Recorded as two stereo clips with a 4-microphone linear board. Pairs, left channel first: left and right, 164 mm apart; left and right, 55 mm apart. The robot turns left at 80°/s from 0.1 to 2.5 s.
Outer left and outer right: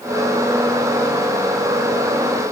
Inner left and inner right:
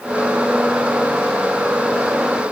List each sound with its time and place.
Only background noise.